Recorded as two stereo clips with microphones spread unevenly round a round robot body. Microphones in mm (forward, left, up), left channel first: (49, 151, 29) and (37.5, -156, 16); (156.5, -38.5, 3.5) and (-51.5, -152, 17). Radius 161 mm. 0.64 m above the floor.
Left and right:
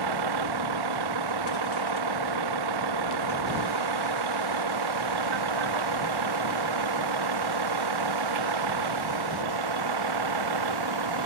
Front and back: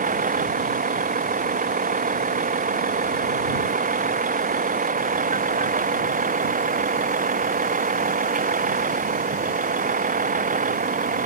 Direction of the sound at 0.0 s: 95° right.